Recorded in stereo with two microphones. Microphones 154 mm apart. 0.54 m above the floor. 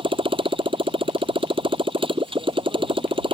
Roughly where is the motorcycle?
Right.